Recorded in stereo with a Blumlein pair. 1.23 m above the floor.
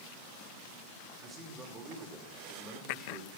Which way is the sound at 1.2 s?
15° right.